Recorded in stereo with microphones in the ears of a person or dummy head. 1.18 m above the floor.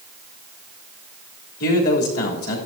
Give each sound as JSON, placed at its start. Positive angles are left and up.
{"t": 1.6, "sound": "a man speaking", "side_deg": 65, "distance_m": 3.0}